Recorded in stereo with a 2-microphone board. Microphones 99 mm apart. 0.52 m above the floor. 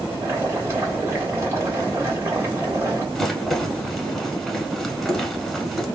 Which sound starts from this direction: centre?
A rattle, at 3.1 s.